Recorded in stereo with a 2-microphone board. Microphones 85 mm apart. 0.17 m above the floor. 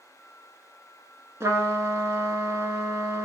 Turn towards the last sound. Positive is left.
turn(degrees=-35)  # may be behind; listen again after turning